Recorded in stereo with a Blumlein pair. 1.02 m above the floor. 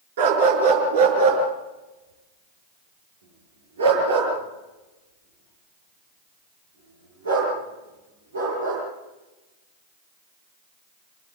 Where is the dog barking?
55° right, 5 m; by 8.8 s 75° right, 10.5 m.